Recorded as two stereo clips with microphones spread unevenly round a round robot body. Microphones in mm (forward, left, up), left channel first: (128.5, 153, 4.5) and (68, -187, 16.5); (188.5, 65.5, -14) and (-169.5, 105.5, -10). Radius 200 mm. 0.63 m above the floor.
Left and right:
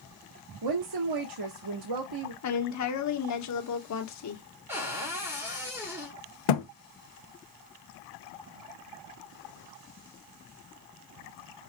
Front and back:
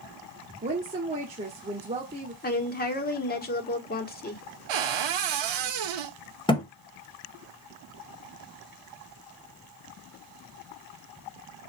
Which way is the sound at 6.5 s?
70° left.